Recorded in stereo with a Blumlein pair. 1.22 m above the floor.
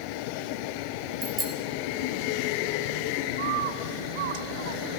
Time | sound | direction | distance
1.2 | a bicycle bell | 15° right | 4 m
3.4 | a bird | 55° right | 1.5 m